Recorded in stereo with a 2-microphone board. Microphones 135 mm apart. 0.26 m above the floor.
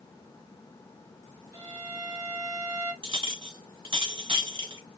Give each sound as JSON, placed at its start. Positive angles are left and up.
{"t": 1.5, "sound": "a violin", "side_deg": -40, "distance_m": 1.0}
{"t": 3.0, "sound": "a clink", "side_deg": -40, "distance_m": 1.2}